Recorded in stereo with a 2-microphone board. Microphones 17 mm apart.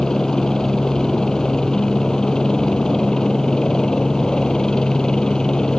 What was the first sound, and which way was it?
A helicopter, 40° left (ahead or behind).